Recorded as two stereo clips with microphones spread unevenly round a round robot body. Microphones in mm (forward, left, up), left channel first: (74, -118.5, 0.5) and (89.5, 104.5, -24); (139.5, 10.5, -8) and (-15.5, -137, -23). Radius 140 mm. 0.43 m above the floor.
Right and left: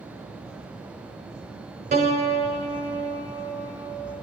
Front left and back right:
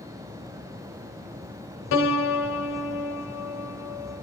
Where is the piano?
35° left, 1.8 m.